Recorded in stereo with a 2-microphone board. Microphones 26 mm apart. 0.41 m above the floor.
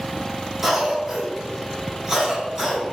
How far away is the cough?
About 1.6 m.